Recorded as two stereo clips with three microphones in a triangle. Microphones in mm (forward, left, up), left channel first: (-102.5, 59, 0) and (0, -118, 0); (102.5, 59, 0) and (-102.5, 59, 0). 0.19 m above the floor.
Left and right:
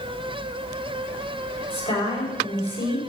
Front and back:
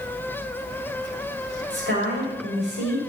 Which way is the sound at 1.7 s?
175° left.